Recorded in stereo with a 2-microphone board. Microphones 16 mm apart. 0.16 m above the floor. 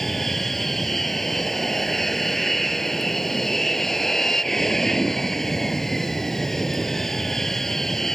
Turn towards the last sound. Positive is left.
turn(degrees=25)  # may be behind; listen again after turning